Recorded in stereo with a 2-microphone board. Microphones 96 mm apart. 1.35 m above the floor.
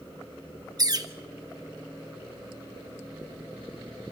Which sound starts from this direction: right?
A bird, at 0.8 s.